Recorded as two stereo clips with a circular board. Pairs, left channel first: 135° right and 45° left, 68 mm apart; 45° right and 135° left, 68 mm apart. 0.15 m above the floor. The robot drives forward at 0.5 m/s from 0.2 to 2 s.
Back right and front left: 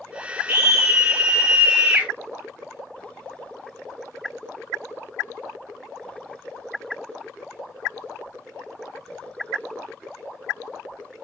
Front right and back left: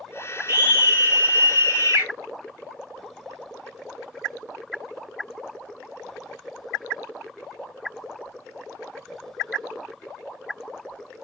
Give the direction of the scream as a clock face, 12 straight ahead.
9 o'clock.